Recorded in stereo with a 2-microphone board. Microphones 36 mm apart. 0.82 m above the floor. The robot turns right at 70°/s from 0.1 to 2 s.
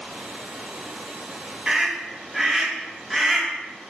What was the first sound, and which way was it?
A scream, 30° right (ahead or behind).